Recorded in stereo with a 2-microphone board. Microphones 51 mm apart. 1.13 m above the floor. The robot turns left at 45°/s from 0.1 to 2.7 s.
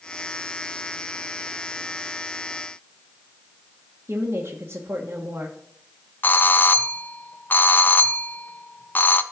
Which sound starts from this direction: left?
A doorbell, at 6.2 s.